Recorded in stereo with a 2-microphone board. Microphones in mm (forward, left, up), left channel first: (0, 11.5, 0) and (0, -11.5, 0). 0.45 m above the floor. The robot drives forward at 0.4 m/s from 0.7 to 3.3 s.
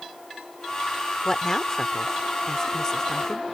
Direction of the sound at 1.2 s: 20° left (ahead or behind).